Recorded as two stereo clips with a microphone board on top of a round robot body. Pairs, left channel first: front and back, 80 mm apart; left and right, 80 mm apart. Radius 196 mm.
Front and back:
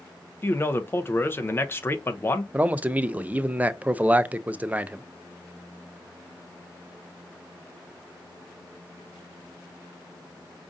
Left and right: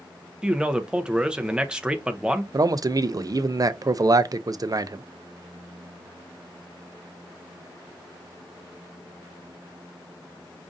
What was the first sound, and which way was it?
A man speaking, 20° right.